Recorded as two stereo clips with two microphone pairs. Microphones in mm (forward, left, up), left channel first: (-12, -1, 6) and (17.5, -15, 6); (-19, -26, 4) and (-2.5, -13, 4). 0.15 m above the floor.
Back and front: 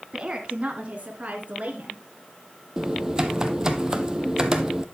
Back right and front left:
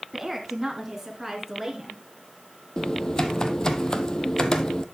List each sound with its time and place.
0.1 s a woman speaking: 45° right, 1.3 m; by 2.0 s 50° right, 2 m
2.8 s typing on a keyboard: 90° right, 0.9 m